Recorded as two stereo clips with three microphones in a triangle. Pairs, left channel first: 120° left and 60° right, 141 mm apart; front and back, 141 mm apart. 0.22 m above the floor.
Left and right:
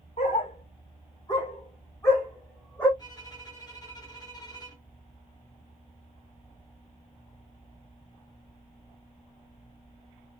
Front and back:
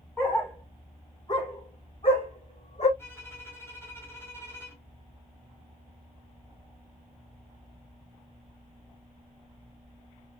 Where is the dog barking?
80° left, 1.9 m; by 2.9 s 35° left, 2.5 m.